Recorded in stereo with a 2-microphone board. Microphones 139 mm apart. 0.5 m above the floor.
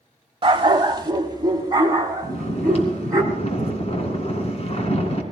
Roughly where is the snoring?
Left.